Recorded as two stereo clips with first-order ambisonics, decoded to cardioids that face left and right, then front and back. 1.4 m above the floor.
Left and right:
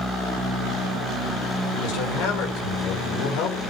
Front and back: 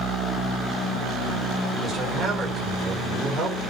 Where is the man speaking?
105° left, 6 m.